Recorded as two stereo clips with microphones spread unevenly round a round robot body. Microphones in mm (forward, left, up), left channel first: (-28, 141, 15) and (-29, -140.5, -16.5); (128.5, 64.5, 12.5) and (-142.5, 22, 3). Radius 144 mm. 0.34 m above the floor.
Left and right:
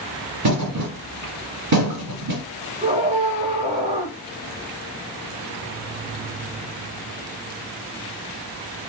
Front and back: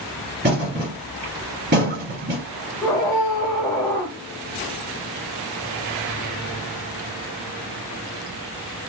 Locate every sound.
0.4 s a thud: 115° right, 2 m
2.8 s a scream: 60° right, 0.9 m